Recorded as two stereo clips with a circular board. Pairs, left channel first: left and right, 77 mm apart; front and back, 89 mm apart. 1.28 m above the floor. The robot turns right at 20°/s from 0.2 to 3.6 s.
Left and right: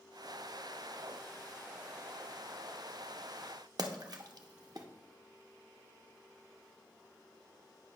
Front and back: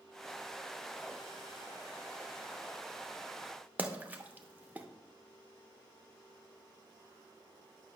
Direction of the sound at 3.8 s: 110° right.